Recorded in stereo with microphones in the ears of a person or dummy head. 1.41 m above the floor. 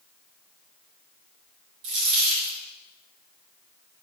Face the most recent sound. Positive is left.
turn(degrees=-60)  # may be behind; listen again after turning